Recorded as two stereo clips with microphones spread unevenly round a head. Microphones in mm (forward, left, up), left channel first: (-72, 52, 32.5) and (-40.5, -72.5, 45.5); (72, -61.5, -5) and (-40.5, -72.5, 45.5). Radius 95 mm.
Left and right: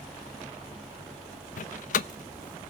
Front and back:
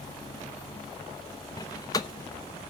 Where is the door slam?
90° left, 0.7 m.